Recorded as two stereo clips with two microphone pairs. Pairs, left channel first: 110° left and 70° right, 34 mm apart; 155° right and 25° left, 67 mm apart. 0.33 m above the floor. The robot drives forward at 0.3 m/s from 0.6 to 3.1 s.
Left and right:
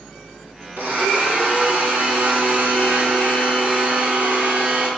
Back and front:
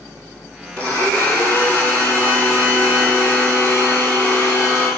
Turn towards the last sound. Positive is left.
turn(degrees=-100)